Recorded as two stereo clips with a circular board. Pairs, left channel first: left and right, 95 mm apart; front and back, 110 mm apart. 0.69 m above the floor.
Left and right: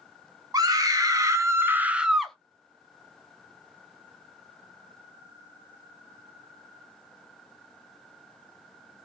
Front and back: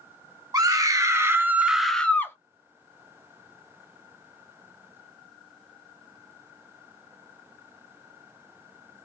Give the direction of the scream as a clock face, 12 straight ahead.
4 o'clock.